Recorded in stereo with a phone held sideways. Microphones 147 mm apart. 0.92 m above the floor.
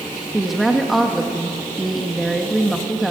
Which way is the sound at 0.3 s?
Centre (ahead or behind).